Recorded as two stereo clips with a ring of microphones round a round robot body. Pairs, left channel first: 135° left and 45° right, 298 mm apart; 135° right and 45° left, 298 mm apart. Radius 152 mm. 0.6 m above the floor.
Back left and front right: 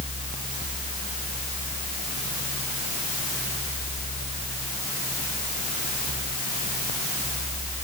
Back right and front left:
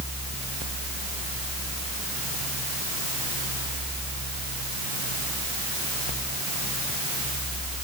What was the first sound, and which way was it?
Only background noise.